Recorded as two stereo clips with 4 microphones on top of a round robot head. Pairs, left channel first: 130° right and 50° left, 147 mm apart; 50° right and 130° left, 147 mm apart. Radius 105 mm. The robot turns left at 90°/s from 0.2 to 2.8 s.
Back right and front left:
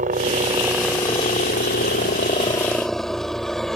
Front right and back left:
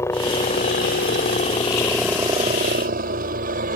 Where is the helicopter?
20° left; by 3.8 s 145° left.